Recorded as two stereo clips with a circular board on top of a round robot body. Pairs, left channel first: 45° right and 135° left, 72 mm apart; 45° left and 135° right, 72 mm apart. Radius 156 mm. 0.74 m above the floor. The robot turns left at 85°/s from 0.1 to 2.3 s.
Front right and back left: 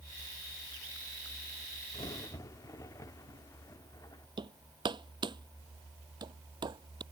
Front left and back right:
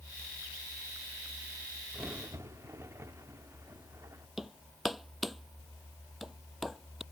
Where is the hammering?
135° left.